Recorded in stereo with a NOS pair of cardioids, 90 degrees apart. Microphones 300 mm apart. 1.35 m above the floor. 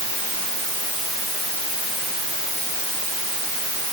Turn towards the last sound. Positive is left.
No sound to turn to.